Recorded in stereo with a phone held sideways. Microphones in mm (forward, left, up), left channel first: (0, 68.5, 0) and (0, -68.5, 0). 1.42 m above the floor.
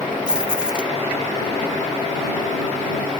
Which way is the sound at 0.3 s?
5° right (ahead or behind).